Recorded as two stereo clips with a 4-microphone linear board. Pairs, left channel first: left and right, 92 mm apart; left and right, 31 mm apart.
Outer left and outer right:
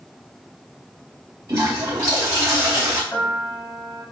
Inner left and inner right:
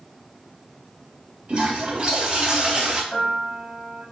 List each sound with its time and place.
1.5 s a toilet flushing: 40° right (ahead or behind), 4.5 m
3.1 s a piano: 10° left (ahead or behind), 4.5 m